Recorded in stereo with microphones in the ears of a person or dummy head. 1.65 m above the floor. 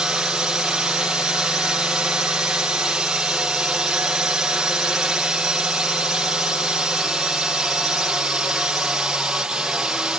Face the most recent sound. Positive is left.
turn(degrees=-5)  # may be behind; listen again after turning